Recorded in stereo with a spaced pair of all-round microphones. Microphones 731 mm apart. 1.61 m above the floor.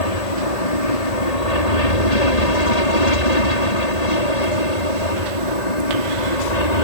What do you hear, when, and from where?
0.0 s an aircraft: 55° left (ahead or behind); by 6.8 s 65° left (ahead or behind)